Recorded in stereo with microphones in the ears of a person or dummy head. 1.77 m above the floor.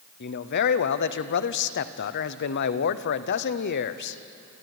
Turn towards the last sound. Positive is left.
turn(degrees=60)  # may be behind; listen again after turning